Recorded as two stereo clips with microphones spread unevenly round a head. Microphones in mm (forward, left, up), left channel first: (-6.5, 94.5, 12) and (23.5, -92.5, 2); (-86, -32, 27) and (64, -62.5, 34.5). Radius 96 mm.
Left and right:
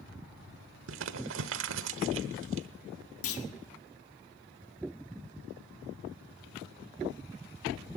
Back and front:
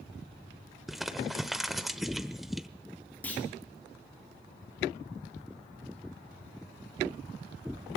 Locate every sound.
0.9 s crumpling: 100° right, 1.0 m
3.2 s a clunk: 85° left, 1.8 m